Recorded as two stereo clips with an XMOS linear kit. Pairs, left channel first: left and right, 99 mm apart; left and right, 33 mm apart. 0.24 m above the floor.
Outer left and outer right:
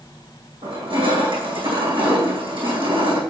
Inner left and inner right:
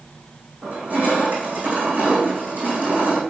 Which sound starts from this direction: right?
Crushing, at 0.6 s.